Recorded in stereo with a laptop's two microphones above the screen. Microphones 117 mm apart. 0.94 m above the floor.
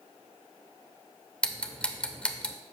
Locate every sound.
1.4 s ticking: 10° left (ahead or behind), 0.9 m